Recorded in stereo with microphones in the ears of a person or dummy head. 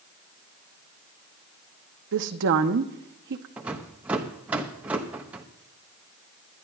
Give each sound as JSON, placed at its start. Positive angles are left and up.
{"t": 2.1, "sound": "a woman speaking", "side_deg": -60, "distance_m": 0.9}
{"t": 3.6, "sound": "a rattle", "side_deg": -10, "distance_m": 0.8}